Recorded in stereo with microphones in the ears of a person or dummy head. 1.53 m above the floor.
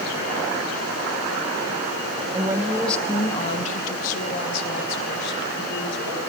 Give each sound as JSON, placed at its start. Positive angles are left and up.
{"t": 2.3, "sound": "a woman speaking", "side_deg": -25, "distance_m": 1.2}